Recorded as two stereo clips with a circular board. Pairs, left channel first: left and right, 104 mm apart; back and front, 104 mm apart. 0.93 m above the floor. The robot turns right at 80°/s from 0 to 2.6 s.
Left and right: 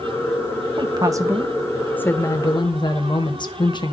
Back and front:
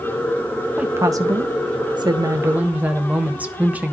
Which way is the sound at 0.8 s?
75° right.